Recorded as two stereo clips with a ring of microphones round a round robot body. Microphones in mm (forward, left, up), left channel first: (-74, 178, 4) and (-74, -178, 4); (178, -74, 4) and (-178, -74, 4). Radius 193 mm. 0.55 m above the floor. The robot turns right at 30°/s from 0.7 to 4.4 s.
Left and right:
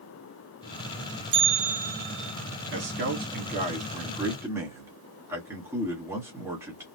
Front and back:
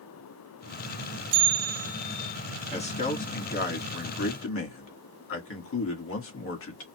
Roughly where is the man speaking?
Ahead right.